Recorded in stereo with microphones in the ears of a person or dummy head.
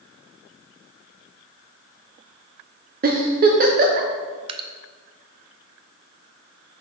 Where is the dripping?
35° right (ahead or behind), 0.7 m.